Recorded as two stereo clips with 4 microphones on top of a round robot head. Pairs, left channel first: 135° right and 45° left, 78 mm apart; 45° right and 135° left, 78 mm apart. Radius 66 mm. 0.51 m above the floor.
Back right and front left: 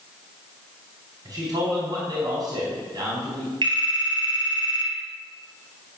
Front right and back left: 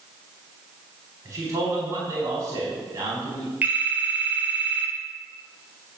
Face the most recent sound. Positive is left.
turn(degrees=65)